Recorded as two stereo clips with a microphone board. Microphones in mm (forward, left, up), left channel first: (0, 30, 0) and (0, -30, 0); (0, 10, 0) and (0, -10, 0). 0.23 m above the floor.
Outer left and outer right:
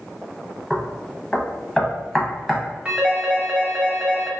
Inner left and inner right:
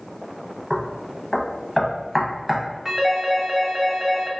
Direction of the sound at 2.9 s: 20° right (ahead or behind).